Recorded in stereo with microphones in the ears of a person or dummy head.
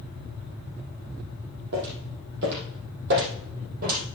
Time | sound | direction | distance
1.7 | footsteps | 65° right (ahead or behind) | 3.5 m